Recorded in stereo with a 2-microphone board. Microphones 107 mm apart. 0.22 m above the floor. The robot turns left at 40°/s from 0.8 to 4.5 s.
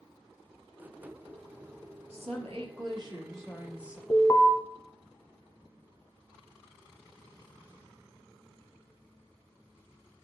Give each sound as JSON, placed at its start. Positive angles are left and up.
{"t": 2.1, "sound": "a woman speaking", "azimuth_deg": -95, "distance_m": 4.0}
{"t": 4.1, "sound": "an alarm", "side_deg": 30, "distance_m": 1.1}